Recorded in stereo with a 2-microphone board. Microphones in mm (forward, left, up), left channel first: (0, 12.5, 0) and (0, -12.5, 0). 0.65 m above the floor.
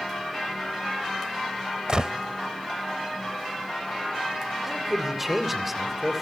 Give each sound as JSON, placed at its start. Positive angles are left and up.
{"t": 1.9, "sound": "a gunshot", "side_deg": -40, "distance_m": 0.7}
{"t": 4.6, "sound": "a man speaking", "side_deg": -15, "distance_m": 2.5}